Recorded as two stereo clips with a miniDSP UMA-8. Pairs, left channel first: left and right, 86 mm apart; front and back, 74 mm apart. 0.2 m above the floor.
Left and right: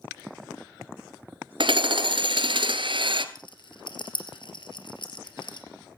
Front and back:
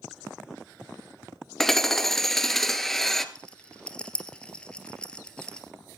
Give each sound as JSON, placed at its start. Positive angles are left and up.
{"t": 1.6, "sound": "hammering", "azimuth_deg": -85, "distance_m": 1.2}
{"t": 3.4, "sound": "a rattle", "azimuth_deg": 75, "distance_m": 2.5}